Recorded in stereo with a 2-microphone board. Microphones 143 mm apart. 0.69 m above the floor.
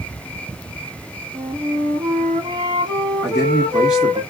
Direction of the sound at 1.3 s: 35° right (ahead or behind).